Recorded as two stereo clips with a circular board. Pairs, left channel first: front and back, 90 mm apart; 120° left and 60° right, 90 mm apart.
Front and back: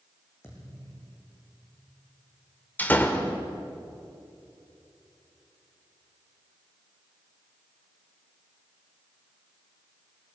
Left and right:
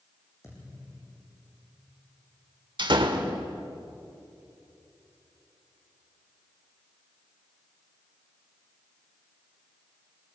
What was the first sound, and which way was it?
A thud, 65° left.